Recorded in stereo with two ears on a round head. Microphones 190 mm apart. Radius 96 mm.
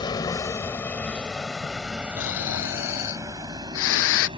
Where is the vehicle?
20° left (ahead or behind); by 4.4 s 25° right (ahead or behind).